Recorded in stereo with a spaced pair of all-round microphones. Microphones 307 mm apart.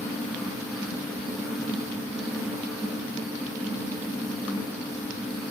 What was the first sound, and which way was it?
A fan, centre (ahead or behind).